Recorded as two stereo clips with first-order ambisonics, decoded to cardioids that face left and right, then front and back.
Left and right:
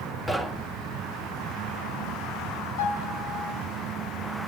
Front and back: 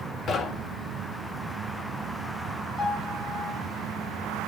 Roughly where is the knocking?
Ahead.